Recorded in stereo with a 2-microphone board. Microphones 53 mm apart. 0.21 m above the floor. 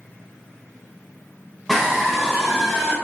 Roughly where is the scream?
Centre.